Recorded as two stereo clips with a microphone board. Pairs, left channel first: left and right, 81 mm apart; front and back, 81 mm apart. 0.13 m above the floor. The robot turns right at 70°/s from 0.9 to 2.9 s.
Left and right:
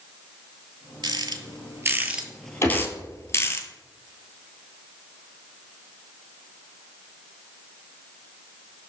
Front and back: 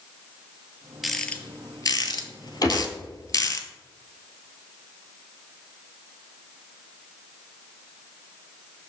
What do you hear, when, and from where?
1.0 s a rattle: 95° right, 0.6 m; by 3.6 s 35° left, 0.6 m
2.6 s a gunshot: 35° left, 1.7 m; by 2.9 s 55° left, 1.7 m